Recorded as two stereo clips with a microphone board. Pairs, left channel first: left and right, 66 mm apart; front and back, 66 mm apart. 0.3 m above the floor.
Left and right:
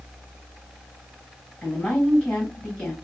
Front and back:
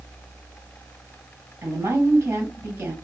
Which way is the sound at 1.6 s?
155° left.